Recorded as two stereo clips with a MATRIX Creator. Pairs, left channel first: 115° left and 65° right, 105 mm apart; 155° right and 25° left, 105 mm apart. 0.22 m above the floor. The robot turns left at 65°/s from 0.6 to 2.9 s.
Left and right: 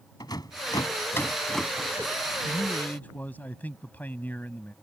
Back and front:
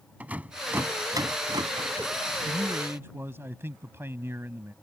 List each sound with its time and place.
0.2 s a rattle: 90° left; by 2.1 s 5° right
2.5 s a man speaking: 90° left; by 4.7 s 60° left